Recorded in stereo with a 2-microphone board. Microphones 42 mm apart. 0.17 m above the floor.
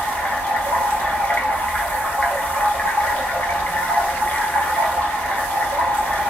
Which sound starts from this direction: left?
Running water, at 0.0 s.